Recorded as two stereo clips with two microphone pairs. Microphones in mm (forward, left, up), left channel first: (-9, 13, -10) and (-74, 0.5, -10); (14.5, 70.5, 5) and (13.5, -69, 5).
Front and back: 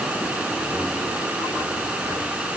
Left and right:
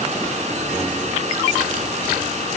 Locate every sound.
Only background noise.